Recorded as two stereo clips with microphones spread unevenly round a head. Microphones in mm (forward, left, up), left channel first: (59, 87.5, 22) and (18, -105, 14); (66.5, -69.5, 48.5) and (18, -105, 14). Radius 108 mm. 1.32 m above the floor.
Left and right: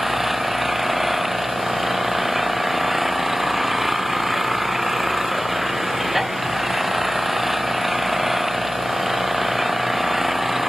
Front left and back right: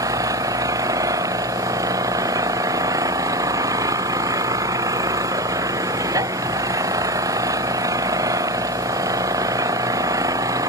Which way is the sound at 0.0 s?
170° left.